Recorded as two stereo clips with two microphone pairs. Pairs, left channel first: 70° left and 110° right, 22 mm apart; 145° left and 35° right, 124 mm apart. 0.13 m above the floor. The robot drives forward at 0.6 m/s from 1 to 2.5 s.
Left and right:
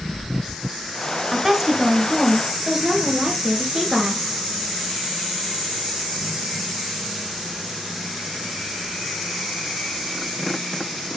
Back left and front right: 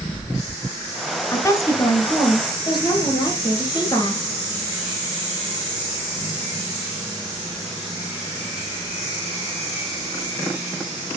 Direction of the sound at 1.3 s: 170° right.